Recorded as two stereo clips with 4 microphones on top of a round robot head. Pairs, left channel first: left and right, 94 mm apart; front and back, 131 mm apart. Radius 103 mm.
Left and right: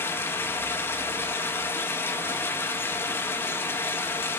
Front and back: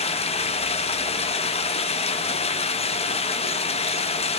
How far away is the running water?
About 0.7 m.